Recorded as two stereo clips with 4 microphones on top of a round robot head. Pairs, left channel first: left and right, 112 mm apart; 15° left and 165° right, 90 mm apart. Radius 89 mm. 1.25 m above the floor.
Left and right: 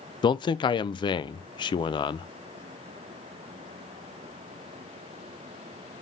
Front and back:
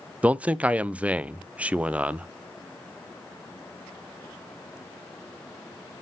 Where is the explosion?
I don't hear an explosion.